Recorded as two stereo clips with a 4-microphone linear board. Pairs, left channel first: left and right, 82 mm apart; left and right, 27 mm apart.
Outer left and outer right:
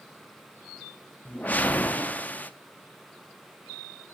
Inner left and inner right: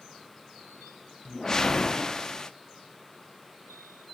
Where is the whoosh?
20° left (ahead or behind), 0.6 m.